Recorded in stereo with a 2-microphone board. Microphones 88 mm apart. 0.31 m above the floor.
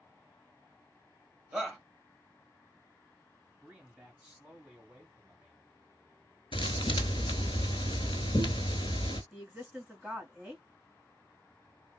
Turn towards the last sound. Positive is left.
turn(degrees=-10)  # may be behind; listen again after turning